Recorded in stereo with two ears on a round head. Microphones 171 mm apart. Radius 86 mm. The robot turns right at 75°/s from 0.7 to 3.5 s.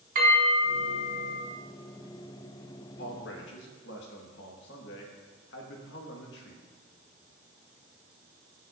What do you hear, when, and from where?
0.1 s a bell: 45° right, 3 m; by 1.4 s 10° left, 3 m
3.0 s a man speaking: 60° left, 1.5 m; by 6.6 s 100° left, 1.5 m